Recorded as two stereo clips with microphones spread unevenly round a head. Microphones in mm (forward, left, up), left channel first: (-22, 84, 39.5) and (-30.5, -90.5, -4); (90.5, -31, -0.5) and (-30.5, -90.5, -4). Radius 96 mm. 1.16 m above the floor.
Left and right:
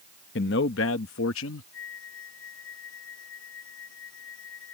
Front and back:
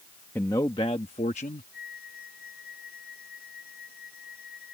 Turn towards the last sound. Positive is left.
turn(degrees=65)